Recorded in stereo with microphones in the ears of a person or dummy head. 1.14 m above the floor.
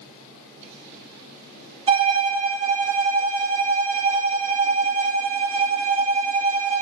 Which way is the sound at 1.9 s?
25° right (ahead or behind).